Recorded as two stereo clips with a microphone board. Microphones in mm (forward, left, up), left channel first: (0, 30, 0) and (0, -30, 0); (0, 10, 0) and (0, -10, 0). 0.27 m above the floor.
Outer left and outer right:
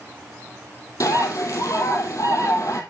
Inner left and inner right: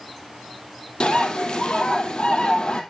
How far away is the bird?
About 2.5 m.